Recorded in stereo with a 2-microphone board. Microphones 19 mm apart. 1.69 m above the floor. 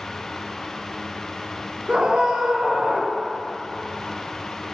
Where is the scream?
60° right (ahead or behind), 1.2 m.